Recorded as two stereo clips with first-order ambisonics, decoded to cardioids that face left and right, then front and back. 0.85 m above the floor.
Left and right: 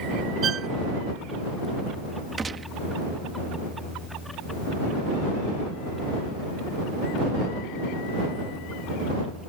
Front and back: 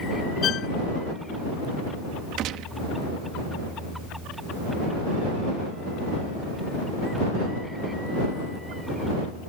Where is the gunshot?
160° right.